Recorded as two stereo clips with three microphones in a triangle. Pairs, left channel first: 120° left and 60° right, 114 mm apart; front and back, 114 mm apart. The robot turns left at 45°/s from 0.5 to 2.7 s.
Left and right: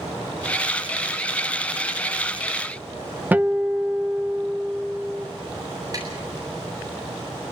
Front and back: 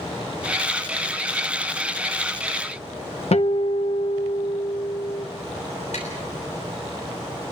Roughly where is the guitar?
Ahead.